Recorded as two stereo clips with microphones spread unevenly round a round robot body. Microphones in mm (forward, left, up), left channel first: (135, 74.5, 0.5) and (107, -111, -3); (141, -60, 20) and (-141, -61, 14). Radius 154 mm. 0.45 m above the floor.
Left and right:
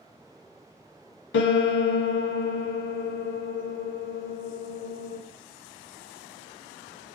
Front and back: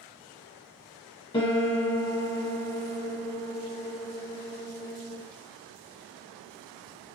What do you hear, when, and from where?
1.3 s a piano: 75° left, 0.6 m